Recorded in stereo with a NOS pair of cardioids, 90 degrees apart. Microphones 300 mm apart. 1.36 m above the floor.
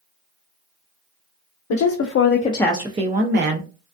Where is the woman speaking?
70° left, 0.8 m; by 3.7 s 45° right, 1.0 m.